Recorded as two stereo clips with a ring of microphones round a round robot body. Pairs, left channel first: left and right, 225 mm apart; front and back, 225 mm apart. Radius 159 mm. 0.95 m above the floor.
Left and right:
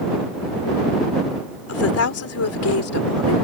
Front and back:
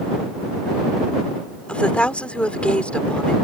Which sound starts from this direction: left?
A woman speaking, at 1.7 s.